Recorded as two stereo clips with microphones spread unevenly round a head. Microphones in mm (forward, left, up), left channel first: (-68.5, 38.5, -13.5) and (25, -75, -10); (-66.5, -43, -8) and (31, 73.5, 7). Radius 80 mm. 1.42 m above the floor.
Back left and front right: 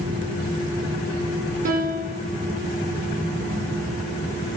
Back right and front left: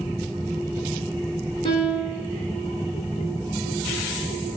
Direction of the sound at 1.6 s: 70° right.